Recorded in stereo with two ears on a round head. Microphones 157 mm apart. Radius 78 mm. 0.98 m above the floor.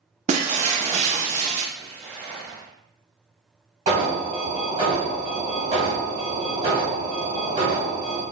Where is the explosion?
10° right (ahead or behind), 1.1 m.